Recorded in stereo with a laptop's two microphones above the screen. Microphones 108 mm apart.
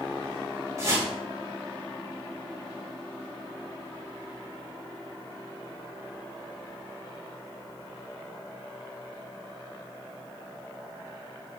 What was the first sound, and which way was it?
A whoosh, 30° right (ahead or behind).